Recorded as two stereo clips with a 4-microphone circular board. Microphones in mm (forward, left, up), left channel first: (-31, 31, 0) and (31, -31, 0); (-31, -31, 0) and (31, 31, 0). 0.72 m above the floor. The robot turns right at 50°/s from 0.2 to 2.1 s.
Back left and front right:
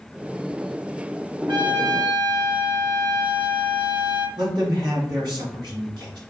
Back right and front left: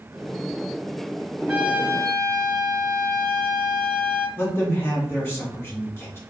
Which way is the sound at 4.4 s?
75° right.